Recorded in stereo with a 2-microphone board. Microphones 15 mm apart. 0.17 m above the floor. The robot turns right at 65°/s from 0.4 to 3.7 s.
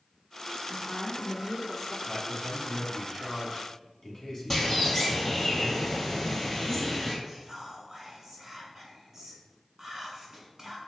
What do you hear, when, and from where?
0.7 s a woman speaking: 20° left (ahead or behind), 1.0 m; by 2.0 s 5° left (ahead or behind), 1.0 m
2.1 s a man speaking: 5° right (ahead or behind), 1.1 m; by 5.5 s 25° left (ahead or behind), 1.1 m
4.5 s a bird: 20° left (ahead or behind), 1.4 m
7.2 s whispering: 20° right (ahead or behind), 1.4 m